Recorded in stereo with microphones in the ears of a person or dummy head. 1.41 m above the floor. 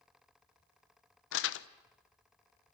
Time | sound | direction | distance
1.3 | crumpling | 85° left | 0.9 m